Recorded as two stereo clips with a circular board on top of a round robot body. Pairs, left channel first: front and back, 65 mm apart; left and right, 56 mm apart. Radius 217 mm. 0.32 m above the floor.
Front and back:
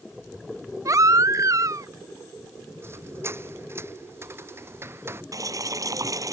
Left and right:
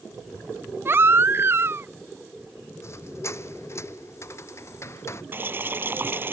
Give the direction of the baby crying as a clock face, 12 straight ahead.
5 o'clock.